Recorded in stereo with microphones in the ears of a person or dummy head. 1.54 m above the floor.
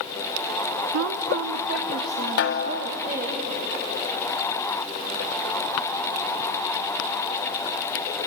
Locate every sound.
0.9 s a woman speaking: 55° right (ahead or behind), 0.6 m; by 3.4 s 45° right (ahead or behind), 3.5 m
2.4 s a snare drum: 50° left (ahead or behind), 0.7 m